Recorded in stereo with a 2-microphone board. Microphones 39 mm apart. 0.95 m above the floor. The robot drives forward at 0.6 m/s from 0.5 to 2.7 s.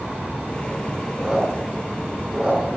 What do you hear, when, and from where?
1.2 s a squeak: 10° right (ahead or behind), 6.5 m